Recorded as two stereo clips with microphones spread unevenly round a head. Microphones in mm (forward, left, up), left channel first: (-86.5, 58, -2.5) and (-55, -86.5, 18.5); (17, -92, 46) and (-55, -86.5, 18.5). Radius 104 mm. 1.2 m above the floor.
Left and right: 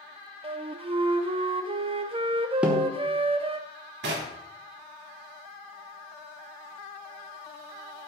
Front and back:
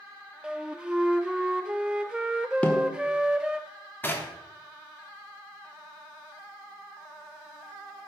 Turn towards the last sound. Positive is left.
turn(degrees=-65)